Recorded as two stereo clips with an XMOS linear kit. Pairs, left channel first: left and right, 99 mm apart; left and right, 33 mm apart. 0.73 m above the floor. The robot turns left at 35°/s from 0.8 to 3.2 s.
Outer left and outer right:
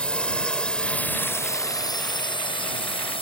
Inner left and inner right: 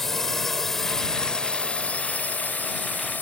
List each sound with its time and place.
0.0 s a drone: 10° left (ahead or behind); by 3.2 s 70° left (ahead or behind)